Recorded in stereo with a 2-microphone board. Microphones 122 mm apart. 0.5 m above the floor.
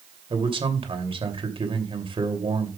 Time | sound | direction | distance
0.3 | a man speaking | 50° right (ahead or behind) | 2.5 m